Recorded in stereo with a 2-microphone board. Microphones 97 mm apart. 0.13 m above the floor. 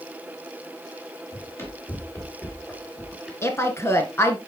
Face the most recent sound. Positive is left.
turn(degrees=30)  # may be behind; listen again after turning